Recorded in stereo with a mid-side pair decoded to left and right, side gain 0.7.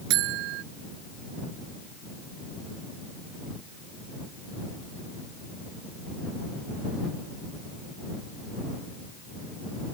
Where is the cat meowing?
No cat meowing in this recording.